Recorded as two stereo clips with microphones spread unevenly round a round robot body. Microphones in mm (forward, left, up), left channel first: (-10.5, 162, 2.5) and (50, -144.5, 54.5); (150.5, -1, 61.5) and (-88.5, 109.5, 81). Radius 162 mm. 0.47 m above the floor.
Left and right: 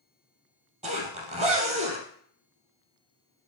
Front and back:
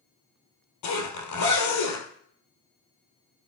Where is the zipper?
10° right, 2.5 m.